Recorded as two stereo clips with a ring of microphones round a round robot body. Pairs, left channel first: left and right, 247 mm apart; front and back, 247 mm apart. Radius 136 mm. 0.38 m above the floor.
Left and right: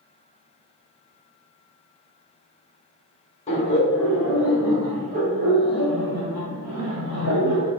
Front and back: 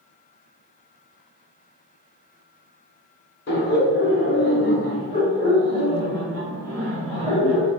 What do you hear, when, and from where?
3.5 s laughter: 35° left, 1.7 m; by 7.7 s 85° right, 3 m